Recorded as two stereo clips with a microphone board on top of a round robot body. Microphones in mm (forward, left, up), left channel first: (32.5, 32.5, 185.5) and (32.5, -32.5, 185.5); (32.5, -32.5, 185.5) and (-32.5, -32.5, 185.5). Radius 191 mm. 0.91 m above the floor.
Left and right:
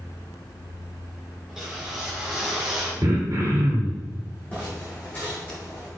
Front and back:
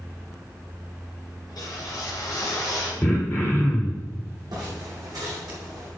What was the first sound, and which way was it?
A whoosh, 10° right.